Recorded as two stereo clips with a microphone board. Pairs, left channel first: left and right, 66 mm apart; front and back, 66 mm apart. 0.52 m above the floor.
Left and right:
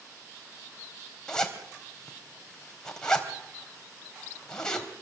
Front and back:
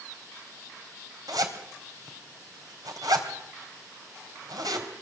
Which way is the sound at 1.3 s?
170° left.